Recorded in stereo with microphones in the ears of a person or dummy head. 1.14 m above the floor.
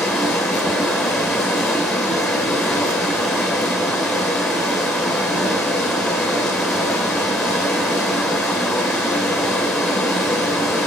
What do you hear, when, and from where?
0.0 s running water: 5° right (ahead or behind), 2.5 m